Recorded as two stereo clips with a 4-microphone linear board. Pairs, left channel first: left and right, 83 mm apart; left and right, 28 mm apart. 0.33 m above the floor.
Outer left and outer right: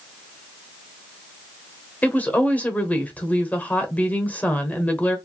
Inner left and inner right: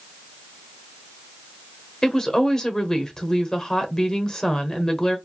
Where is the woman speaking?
20° left (ahead or behind), 0.9 m.